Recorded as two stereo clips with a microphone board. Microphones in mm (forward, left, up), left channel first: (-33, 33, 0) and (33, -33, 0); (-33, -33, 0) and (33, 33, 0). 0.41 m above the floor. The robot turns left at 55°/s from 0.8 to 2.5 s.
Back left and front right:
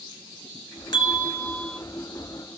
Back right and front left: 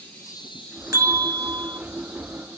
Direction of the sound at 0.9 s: 100° left.